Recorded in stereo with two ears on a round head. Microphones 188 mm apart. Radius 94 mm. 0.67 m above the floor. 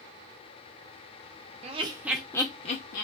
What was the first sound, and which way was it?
Laughter, 35° right (ahead or behind).